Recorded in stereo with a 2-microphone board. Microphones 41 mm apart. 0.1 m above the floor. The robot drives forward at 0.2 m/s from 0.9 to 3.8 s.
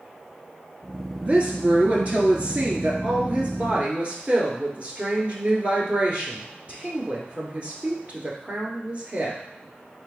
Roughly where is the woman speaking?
Right.